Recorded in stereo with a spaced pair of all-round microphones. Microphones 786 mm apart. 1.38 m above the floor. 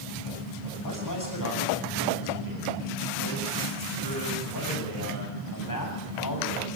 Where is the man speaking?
25° left (ahead or behind), 8.5 m.